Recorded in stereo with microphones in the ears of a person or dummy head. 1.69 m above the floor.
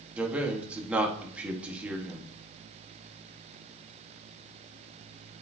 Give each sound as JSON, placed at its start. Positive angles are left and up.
{"t": 0.2, "sound": "a man speaking", "side_deg": -10, "distance_m": 1.3}